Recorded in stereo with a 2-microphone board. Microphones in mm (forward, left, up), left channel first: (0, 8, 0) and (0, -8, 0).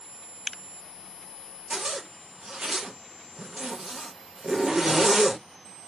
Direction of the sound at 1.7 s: 40° right (ahead or behind).